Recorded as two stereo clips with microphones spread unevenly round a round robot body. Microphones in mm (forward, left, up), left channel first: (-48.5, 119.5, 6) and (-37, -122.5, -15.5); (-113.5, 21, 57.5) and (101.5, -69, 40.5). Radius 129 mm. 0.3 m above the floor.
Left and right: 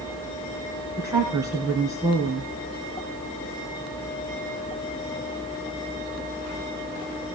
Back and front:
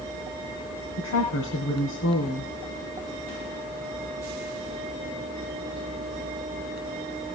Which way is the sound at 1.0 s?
165° right.